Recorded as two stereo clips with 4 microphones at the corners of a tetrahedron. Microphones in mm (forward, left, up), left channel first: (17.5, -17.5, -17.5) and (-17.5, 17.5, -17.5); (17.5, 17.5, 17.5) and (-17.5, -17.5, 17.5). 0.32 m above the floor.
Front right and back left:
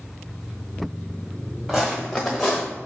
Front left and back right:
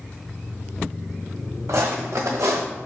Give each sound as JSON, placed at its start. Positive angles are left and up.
{"t": 1.7, "sound": "footsteps", "azimuth_deg": -135, "distance_m": 1.3}